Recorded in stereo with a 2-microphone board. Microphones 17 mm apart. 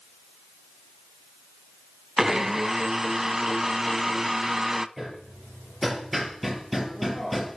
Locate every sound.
2.2 s a blender: 25° right (ahead or behind), 0.6 m
5.0 s hammering: centre (ahead or behind), 4 m